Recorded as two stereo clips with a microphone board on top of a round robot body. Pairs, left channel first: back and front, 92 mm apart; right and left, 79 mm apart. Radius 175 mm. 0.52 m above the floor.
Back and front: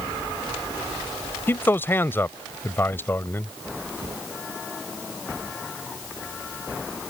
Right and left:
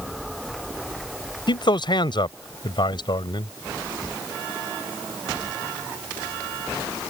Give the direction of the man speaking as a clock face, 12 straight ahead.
4 o'clock.